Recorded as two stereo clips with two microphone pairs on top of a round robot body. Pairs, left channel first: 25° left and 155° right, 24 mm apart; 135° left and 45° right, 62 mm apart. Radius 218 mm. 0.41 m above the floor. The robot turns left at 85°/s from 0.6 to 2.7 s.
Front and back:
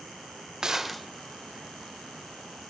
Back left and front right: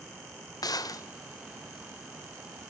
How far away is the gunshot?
About 0.6 m.